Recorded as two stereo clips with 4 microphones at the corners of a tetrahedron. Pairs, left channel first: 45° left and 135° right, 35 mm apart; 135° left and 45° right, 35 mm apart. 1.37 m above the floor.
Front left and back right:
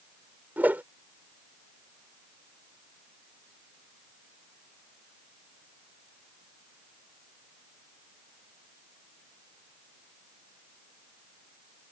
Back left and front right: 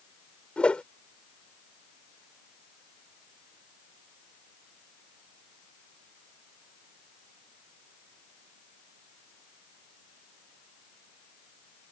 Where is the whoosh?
165° right.